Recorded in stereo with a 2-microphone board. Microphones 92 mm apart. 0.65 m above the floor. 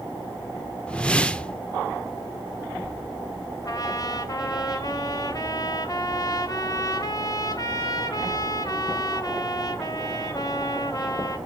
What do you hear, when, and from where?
0.9 s a whoosh: 10° left (ahead or behind), 0.6 m
3.6 s a trumpet: 40° left (ahead or behind), 1.2 m